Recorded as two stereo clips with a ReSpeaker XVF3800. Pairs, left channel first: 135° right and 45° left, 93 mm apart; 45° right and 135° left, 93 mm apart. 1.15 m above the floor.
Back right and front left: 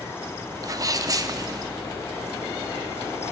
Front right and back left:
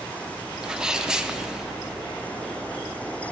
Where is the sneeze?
60° left, 0.8 m.